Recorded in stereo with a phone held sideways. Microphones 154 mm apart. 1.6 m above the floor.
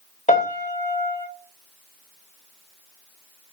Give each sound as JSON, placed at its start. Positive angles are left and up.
{"t": 0.3, "sound": "a piano", "side_deg": 50, "distance_m": 1.1}